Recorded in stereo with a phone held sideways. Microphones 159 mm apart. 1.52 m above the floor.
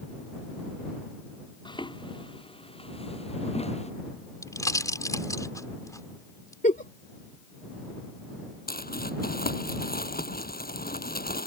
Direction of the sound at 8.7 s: 70° left (ahead or behind).